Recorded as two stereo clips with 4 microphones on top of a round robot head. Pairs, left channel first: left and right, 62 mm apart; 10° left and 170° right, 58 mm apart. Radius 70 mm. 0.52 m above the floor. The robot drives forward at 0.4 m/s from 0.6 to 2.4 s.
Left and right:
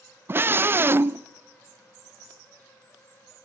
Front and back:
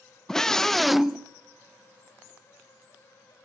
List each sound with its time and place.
0.3 s a scream: 70° right, 0.8 m; by 1.3 s 100° right, 0.8 m